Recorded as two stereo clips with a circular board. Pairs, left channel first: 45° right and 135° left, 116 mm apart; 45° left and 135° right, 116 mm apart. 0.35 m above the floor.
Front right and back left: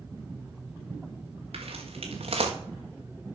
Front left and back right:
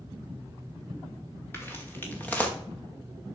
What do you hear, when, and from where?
1.5 s footsteps: 115° left, 3 m; by 2.5 s 120° left, 2 m